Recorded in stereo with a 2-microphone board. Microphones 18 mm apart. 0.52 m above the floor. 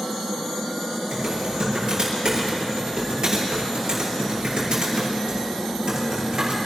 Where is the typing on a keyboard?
50° right (ahead or behind), 6.5 m.